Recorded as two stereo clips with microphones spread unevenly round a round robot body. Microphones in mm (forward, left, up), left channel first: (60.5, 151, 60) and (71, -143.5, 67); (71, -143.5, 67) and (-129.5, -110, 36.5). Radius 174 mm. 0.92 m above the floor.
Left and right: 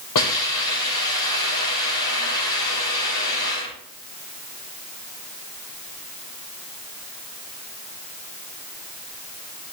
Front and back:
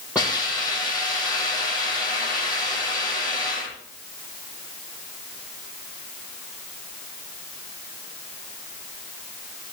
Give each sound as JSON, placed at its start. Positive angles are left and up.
{"t": 0.1, "sound": "a hiss", "azimuth_deg": 85, "distance_m": 8.0}